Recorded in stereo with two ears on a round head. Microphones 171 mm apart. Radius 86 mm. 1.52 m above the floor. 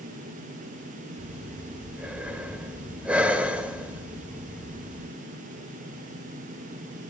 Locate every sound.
1.2 s breathing: 5° right (ahead or behind), 1.3 m